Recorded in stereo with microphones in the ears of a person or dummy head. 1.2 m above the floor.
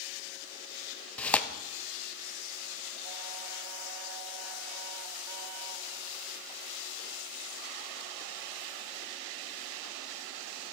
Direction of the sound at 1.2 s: 5° left (ahead or behind).